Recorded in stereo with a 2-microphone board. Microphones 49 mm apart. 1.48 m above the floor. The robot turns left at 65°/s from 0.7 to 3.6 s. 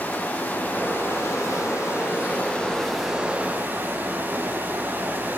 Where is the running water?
145° left, 6.5 m; by 5.4 s 40° right, 6.5 m.